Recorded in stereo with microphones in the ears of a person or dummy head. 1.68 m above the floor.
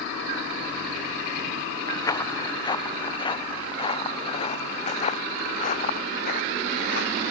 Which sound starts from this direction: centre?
Footsteps, at 1.9 s.